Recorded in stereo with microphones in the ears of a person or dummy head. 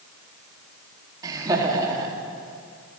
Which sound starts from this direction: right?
Laughter, at 1.2 s.